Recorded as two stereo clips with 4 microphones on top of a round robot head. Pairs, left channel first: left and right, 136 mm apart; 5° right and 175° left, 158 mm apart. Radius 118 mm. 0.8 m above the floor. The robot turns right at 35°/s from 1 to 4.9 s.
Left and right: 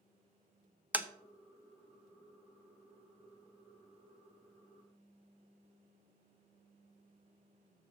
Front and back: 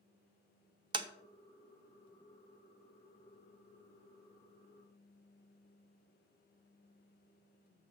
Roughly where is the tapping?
Behind.